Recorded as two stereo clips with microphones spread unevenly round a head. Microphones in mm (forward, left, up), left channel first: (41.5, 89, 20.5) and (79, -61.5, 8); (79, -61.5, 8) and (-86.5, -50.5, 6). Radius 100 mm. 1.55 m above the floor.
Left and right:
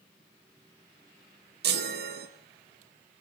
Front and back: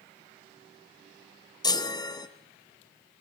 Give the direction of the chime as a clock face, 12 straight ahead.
2 o'clock.